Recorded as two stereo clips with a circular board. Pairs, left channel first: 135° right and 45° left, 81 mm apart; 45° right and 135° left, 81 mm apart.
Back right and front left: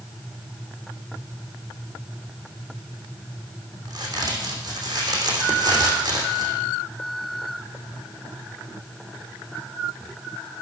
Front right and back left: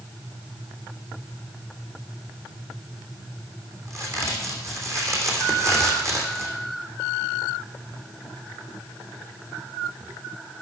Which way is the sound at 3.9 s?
80° left.